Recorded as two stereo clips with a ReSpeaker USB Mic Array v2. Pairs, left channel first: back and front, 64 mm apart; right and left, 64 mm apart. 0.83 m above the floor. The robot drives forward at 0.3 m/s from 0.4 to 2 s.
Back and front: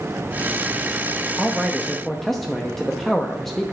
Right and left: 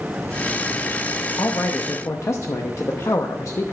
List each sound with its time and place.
1.4 s a man speaking: 80° right, 0.8 m; by 3.7 s 95° right, 0.8 m